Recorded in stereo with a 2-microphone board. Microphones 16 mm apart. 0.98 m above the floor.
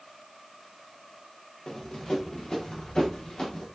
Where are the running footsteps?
75° left (ahead or behind), 7 m; by 3.7 s 80° left, 8 m.